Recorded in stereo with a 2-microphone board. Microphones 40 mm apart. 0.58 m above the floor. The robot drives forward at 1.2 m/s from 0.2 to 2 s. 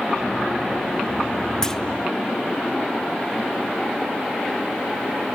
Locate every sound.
1.6 s a clunk: 15° left (ahead or behind), 0.7 m; by 1.8 s 10° left (ahead or behind), 0.9 m